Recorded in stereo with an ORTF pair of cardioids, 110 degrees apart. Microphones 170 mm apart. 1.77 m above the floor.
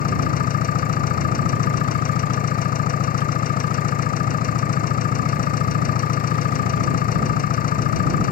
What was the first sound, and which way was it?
An engine running, 55° left.